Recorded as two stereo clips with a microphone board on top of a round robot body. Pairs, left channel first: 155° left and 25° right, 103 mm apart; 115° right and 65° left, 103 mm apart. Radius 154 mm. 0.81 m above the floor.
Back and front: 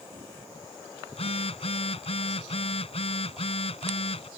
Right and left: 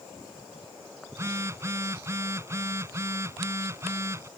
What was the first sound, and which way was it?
A phone buzzing, 130° left.